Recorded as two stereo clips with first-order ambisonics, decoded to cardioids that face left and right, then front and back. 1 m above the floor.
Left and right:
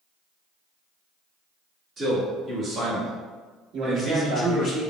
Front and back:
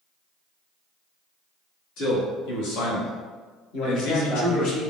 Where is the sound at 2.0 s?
25° right, 1.8 m; by 4.7 s 35° left, 0.8 m.